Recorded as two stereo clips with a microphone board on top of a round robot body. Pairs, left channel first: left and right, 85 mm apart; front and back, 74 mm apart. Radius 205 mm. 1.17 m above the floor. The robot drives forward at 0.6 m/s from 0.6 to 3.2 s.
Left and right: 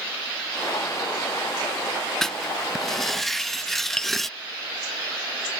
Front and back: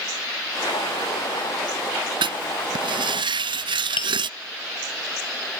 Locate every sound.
2.2 s writing: 175° left; by 4.3 s straight behind
4.0 s tapping: 10° left